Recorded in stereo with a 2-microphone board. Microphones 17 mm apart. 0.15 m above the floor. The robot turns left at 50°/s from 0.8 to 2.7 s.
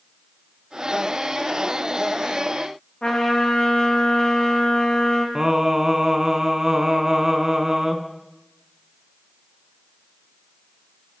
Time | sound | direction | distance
3.0 | a trumpet | 75° left (ahead or behind) | 2 m
5.3 | singing | 30° right (ahead or behind) | 0.7 m